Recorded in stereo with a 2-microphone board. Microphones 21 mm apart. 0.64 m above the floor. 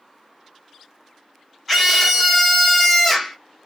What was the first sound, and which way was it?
A scream, 10° left (ahead or behind).